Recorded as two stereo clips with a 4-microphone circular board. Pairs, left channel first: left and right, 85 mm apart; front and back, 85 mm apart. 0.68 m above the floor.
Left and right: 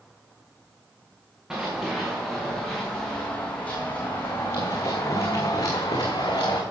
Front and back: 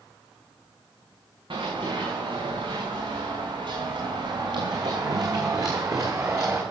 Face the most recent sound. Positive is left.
turn(degrees=125)